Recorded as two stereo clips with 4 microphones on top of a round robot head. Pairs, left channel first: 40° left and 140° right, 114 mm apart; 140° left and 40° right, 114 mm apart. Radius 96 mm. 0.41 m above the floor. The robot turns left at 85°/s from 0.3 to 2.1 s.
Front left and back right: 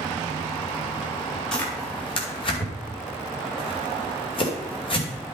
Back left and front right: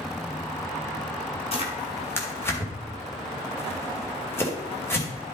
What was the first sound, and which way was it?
Tearing paper, 125° left.